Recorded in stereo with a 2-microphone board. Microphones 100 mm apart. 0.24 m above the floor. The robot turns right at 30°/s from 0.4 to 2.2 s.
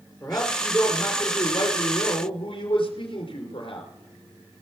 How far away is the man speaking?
About 3.5 m.